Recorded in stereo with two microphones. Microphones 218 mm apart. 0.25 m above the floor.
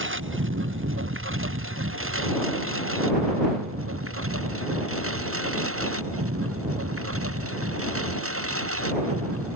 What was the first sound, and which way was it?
A lawn mower, 65° right (ahead or behind).